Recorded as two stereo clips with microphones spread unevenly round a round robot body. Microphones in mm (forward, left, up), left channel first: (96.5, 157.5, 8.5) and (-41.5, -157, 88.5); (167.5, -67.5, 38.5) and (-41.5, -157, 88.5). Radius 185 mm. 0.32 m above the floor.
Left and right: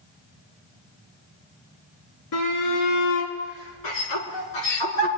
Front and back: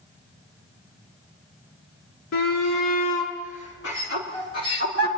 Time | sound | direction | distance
2.3 | a shout | 45° left | 4.5 m